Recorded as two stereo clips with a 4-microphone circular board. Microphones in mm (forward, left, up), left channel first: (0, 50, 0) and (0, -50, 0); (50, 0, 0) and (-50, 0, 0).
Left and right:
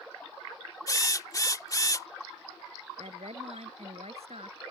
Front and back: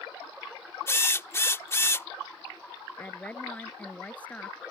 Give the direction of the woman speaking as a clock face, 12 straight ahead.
3 o'clock.